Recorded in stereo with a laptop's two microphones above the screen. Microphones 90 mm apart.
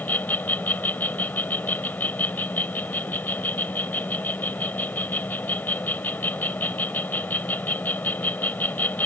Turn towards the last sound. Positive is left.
turn(degrees=20)  # may be behind; listen again after turning